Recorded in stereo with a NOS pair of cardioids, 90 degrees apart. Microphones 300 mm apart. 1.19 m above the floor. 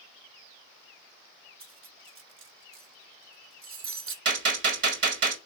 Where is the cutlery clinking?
50° right, 0.8 m.